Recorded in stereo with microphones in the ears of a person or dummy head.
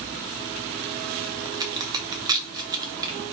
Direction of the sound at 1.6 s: 25° right (ahead or behind).